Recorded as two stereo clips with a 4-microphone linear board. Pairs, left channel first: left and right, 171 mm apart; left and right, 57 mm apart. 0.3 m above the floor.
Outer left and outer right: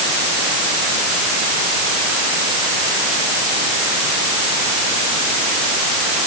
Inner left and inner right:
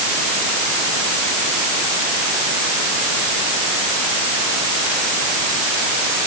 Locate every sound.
Only background noise.